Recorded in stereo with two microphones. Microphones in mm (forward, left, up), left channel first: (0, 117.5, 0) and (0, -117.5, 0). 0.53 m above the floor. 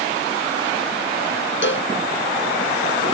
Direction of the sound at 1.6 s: 55° left (ahead or behind).